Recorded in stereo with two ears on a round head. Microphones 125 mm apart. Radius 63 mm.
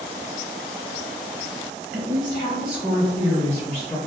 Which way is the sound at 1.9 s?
50° right (ahead or behind).